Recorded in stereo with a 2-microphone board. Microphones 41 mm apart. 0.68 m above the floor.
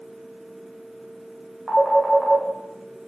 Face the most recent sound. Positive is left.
turn(degrees=15)  # may be behind; listen again after turning